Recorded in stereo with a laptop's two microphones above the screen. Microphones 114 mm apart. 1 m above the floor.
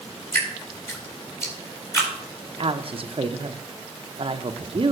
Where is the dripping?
25° left (ahead or behind), 3.5 m.